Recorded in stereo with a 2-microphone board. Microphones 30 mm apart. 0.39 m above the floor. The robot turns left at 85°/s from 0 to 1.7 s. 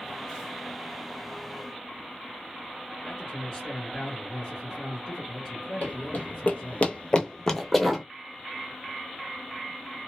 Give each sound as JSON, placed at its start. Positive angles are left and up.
{"t": 3.0, "sound": "a man speaking", "side_deg": 10, "distance_m": 1.7}
{"t": 5.8, "sound": "running footsteps", "side_deg": 60, "distance_m": 0.9}